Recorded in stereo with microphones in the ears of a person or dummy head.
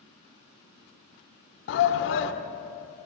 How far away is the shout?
About 1.0 m.